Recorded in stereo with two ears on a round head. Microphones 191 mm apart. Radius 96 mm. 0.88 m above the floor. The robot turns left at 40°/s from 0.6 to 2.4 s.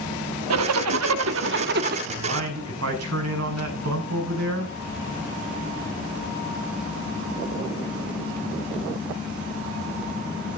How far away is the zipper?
About 1.1 m.